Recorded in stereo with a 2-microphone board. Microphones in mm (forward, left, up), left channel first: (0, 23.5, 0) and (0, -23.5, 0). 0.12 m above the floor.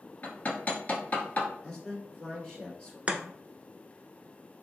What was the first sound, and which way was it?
Hammering, 35° left (ahead or behind).